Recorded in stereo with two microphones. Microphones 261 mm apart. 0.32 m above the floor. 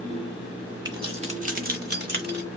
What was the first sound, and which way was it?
Keys jangling, 15° right (ahead or behind).